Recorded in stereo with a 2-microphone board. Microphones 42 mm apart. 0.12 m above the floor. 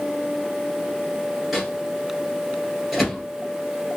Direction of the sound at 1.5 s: Centre (ahead or behind).